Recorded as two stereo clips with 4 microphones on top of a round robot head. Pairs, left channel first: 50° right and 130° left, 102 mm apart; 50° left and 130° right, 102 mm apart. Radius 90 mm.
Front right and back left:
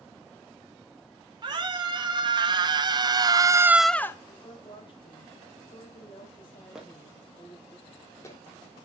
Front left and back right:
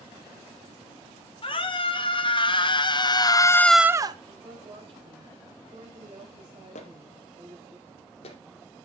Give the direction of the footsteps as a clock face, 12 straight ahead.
10 o'clock.